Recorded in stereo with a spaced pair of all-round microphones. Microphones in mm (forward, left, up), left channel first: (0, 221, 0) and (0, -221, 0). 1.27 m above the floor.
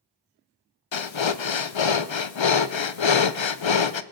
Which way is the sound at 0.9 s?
85° left.